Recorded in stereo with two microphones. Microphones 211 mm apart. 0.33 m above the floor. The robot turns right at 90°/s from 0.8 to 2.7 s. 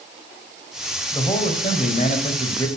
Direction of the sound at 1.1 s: 25° left.